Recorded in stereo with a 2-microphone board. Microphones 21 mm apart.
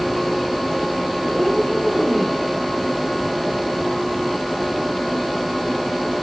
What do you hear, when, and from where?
1.2 s a cat meowing: 85° right, 10 m; by 2.4 s 90° right, 9 m